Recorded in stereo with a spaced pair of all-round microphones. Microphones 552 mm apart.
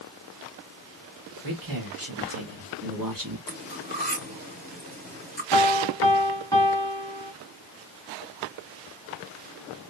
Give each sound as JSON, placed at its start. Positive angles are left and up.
{"t": 1.4, "sound": "a man speaking", "side_deg": -45, "distance_m": 2.5}
{"t": 3.5, "sound": "cutlery clinking", "side_deg": -15, "distance_m": 3.0}
{"t": 5.5, "sound": "a piano", "side_deg": 5, "distance_m": 1.9}